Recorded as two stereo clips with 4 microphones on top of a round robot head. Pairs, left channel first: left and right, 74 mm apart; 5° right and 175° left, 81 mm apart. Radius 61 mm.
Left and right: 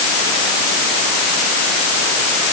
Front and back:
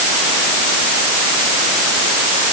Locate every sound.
Only background noise.